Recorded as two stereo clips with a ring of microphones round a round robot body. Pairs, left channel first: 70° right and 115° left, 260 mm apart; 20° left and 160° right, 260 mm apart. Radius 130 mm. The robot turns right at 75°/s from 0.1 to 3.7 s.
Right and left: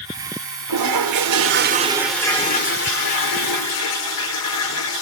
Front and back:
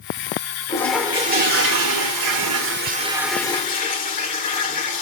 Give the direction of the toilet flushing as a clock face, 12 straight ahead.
9 o'clock.